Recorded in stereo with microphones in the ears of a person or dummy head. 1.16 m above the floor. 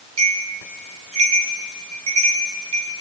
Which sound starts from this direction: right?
A bell, at 0.2 s.